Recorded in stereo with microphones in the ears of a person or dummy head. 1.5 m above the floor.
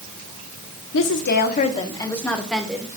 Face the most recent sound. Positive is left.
turn(degrees=-10)  # may be behind; listen again after turning